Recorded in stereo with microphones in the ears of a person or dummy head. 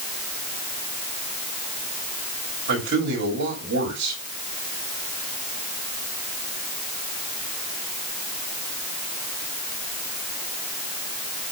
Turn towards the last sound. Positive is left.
turn(degrees=-55)  # may be behind; listen again after turning